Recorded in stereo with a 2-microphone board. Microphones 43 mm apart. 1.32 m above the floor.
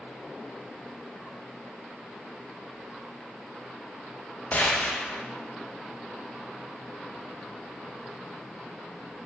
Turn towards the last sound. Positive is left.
turn(degrees=40)  # may be behind; listen again after turning